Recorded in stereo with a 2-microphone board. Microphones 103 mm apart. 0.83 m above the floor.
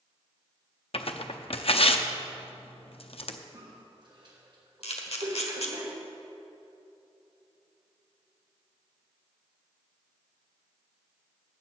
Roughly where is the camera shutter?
Left.